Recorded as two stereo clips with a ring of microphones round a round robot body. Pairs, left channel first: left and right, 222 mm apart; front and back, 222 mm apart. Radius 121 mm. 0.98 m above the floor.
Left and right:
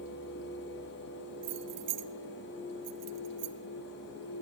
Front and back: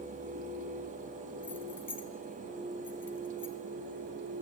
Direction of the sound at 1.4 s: 80° right.